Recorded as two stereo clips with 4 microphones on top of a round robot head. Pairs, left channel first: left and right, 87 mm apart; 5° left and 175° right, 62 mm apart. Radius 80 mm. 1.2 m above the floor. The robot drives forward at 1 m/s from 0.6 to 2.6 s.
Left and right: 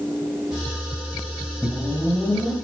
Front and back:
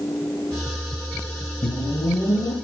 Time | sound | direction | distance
1.6 | a whoosh | straight ahead | 3 m